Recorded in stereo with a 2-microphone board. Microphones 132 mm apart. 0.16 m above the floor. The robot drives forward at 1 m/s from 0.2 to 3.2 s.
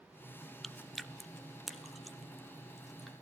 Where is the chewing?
Centre (ahead or behind), 0.9 m.